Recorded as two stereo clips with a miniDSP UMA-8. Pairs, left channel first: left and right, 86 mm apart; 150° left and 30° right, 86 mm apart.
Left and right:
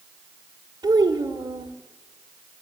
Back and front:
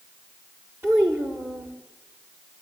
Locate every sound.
0.8 s a child speaking: 85° right, 1.6 m